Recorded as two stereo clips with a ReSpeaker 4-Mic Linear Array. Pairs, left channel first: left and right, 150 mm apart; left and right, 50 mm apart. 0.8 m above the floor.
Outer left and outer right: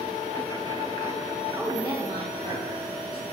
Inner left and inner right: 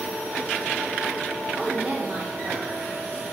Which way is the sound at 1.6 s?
5° right (ahead or behind).